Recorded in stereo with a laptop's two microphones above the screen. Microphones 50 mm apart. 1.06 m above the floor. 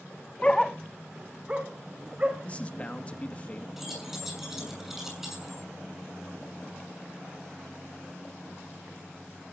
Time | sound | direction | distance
0.4 | a dog barking | 25° left (ahead or behind) | 0.5 m
2.4 | a man speaking | 30° left (ahead or behind) | 2 m
3.8 | keys jangling | 5° right (ahead or behind) | 7 m